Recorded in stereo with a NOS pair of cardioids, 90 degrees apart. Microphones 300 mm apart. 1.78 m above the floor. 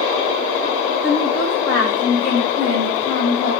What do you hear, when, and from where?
1.0 s a woman speaking: 50° left, 6 m; by 3.5 s 60° left, 5 m